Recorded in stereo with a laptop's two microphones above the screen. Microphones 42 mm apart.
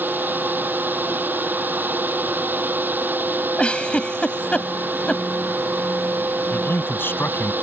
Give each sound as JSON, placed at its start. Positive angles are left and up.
{"t": 0.0, "sound": "a fan", "side_deg": -50}
{"t": 3.6, "sound": "a giggle", "side_deg": 25}
{"t": 6.5, "sound": "a man speaking", "side_deg": 55}